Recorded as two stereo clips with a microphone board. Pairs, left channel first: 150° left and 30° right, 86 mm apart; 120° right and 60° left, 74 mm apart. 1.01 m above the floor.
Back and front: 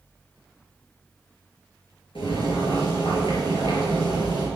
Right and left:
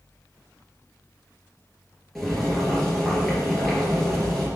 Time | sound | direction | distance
2.1 | boiling | 155° left | 4 m